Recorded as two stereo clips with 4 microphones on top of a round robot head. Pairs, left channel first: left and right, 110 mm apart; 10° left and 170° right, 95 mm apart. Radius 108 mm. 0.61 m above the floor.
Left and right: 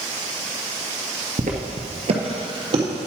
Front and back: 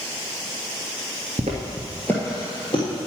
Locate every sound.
1.4 s footsteps: 130° right, 0.8 m; by 2.8 s 40° right, 1.5 m